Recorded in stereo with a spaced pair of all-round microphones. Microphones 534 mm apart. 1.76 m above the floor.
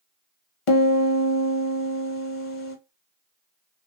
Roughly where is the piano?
Left.